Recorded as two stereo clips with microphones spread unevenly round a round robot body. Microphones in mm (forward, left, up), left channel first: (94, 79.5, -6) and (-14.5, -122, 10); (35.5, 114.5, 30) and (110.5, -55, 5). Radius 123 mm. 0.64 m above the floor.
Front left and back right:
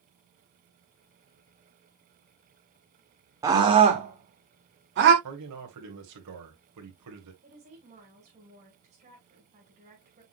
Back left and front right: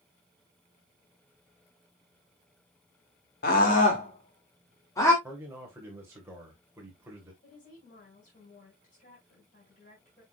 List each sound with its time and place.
3.4 s a scream: 165° left, 1.8 m; by 5.1 s 165° right, 2.5 m
5.2 s a man speaking: 145° right, 2.5 m
7.4 s a woman speaking: 175° left, 5 m